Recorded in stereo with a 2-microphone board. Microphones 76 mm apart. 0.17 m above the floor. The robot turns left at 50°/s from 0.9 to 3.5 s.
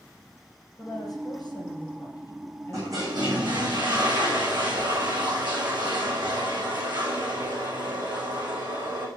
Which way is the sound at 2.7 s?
40° right.